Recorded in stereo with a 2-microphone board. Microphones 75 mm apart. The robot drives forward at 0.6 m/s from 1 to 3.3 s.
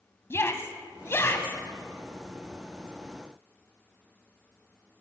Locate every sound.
0.3 s a shout: 35° left (ahead or behind), 1.2 m